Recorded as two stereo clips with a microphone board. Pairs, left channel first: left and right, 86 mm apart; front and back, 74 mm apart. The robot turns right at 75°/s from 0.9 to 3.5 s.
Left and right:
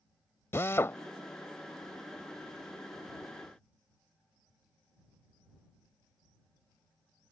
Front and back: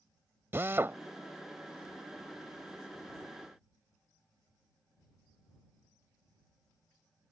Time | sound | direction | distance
0.5 | a drill | 135° left | ?